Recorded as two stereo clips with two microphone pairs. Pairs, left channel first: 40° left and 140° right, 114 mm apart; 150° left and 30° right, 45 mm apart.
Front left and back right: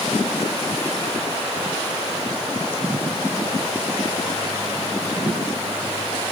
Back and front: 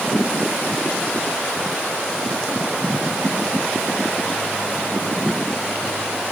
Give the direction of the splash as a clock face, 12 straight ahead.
No splash in this recording.